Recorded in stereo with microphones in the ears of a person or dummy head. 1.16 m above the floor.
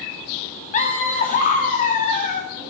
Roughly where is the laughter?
Left.